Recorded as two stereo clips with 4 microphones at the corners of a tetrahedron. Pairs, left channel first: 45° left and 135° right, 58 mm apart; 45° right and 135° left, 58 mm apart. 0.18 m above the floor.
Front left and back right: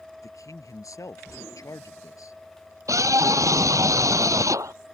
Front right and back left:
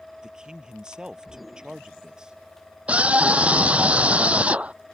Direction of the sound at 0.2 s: 60° left.